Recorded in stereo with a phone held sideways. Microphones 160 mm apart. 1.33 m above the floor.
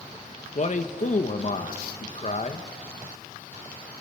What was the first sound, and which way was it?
A man speaking, 50° left (ahead or behind).